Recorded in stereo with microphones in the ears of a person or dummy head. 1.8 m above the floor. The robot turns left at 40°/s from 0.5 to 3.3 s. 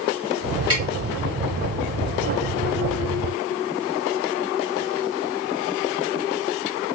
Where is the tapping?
25° right (ahead or behind), 1.7 m.